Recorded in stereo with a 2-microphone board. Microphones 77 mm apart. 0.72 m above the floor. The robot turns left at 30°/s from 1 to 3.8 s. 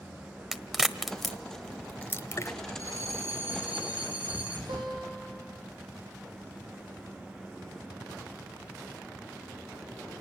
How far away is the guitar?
About 7 m.